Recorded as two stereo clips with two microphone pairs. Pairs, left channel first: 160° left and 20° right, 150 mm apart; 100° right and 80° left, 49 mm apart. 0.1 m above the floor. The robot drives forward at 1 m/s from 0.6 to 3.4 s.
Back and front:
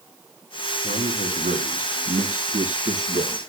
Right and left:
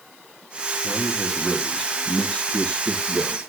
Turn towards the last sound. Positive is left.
turn(degrees=-50)